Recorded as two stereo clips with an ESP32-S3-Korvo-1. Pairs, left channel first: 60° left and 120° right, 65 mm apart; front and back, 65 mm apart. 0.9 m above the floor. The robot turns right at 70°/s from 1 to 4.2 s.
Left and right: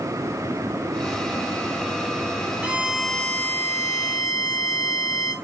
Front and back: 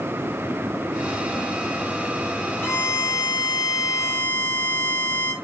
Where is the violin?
50° right, 1.4 m; by 5.3 s 60° left, 1.4 m.